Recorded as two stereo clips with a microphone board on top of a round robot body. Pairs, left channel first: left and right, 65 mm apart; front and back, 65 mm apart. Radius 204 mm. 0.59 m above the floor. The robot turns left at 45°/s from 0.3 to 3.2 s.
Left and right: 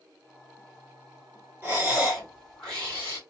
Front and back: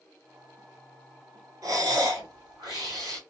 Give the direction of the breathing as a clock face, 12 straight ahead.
5 o'clock.